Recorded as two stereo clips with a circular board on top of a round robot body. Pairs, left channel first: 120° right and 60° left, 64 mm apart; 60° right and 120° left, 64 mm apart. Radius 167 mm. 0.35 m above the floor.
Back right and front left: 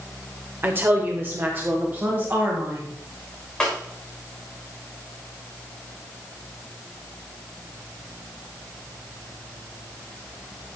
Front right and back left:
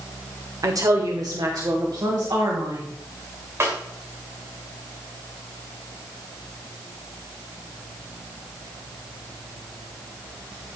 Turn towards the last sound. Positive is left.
turn(degrees=165)